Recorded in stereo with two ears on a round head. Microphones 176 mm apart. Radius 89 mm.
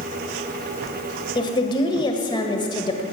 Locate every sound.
1.4 s a woman speaking: 25° left (ahead or behind), 1.9 m